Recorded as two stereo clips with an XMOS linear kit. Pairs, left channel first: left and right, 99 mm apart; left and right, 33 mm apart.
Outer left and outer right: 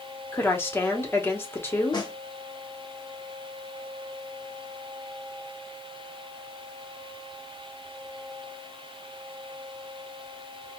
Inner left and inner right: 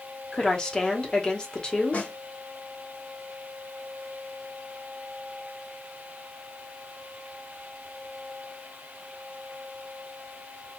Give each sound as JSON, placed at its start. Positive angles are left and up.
{"t": 0.3, "sound": "a woman speaking", "side_deg": 25, "distance_m": 0.9}
{"t": 1.9, "sound": "a snare drum", "side_deg": 45, "distance_m": 0.8}